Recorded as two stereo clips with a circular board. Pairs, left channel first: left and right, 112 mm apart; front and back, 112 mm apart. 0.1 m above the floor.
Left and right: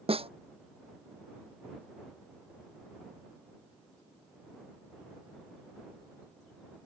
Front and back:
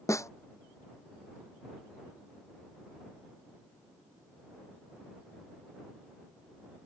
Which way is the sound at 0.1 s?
60° right.